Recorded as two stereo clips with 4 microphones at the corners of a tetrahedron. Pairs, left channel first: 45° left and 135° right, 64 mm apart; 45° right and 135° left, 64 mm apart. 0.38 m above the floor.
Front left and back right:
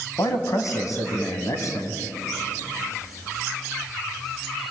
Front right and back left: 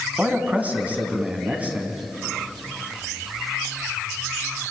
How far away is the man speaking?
About 3.5 m.